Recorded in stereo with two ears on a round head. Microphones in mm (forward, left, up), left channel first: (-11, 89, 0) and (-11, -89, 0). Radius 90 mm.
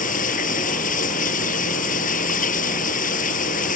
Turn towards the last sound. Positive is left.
turn(degrees=40)  # may be behind; listen again after turning